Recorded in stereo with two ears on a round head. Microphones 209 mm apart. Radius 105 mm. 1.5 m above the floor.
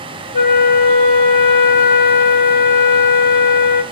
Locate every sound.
0.3 s a flute: 40° left (ahead or behind), 0.8 m